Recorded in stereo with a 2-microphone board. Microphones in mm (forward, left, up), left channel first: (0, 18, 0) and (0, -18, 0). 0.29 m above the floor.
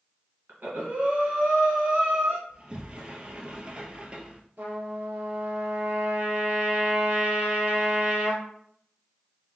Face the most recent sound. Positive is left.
turn(degrees=-65)  # may be behind; listen again after turning